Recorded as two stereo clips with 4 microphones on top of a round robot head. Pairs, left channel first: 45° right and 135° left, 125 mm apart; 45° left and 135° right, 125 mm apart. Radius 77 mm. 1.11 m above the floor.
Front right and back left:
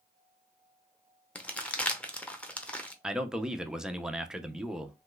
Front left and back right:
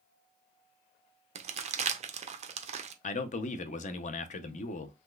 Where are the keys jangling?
I don't hear keys jangling.